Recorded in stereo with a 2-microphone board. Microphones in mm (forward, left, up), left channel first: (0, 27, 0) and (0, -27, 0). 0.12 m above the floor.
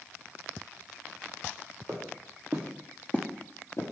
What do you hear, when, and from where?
1.9 s footsteps: 55° right (ahead or behind), 1.1 m; by 3.9 s 70° left (ahead or behind), 0.9 m